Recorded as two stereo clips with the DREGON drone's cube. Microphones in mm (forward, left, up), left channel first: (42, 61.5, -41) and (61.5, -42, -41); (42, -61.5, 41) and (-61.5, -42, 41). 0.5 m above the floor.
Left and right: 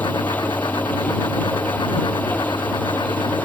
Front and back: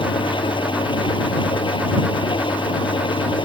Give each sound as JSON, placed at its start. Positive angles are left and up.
{"t": 0.0, "sound": "an engine running", "azimuth_deg": 30}